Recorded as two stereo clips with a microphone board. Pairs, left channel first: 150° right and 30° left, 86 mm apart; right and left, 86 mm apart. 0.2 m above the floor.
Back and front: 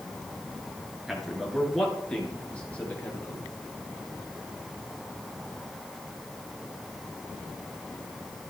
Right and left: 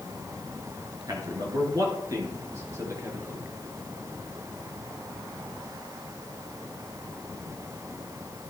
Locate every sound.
1.1 s a man speaking: 120° left, 2.5 m; by 3.5 s 145° left, 3 m